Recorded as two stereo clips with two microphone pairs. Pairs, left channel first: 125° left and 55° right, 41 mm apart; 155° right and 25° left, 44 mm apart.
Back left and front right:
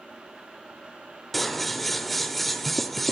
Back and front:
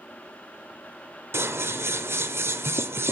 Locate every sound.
1.3 s scissors: 40° left, 0.7 m